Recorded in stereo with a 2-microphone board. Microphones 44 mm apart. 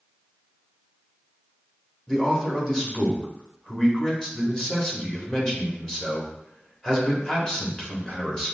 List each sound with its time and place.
2.1 s a man speaking: 10° left (ahead or behind), 1.2 m